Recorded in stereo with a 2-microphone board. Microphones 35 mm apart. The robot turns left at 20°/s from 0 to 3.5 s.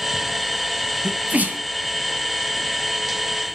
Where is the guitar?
I don't hear a guitar.